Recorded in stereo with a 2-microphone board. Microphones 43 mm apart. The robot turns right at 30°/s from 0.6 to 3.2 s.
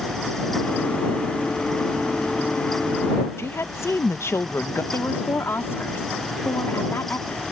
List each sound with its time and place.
3.4 s a woman speaking: 85° left
4.9 s a woman speaking: 75° left (ahead or behind)